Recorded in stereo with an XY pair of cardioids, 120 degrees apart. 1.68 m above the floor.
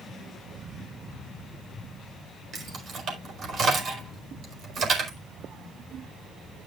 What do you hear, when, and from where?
2.5 s keys jangling: 45° right, 5 m